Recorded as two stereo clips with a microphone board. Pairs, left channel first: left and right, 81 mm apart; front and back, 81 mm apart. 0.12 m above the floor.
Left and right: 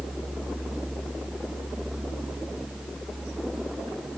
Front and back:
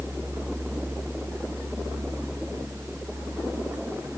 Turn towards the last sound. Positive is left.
No sound to turn to.